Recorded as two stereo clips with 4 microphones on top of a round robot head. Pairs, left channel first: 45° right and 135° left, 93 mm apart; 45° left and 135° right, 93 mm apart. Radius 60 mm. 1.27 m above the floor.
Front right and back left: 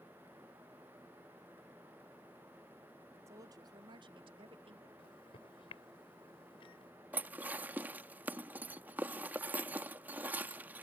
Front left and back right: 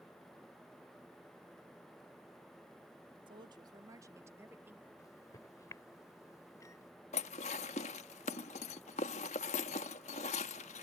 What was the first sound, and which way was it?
A woman speaking, 170° right.